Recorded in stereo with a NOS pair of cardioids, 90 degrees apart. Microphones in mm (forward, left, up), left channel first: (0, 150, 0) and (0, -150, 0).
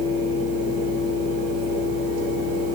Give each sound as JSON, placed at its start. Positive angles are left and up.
{"t": 0.0, "sound": "a fan", "azimuth_deg": -60, "distance_m": 1.6}